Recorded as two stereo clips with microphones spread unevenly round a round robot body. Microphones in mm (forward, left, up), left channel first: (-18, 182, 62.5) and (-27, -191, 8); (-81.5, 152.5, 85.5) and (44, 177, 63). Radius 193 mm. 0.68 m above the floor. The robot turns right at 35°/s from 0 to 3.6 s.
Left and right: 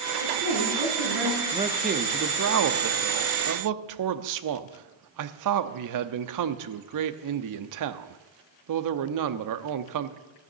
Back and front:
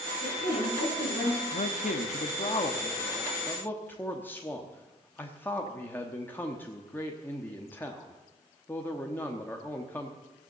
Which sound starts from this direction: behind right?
A woman speaking, at 0.2 s.